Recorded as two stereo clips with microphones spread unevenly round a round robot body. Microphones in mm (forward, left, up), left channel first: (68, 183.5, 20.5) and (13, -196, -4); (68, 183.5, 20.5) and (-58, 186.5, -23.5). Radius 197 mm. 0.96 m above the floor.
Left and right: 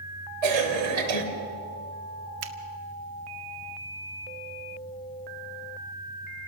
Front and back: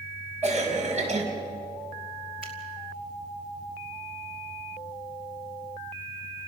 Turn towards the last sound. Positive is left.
turn(degrees=-70)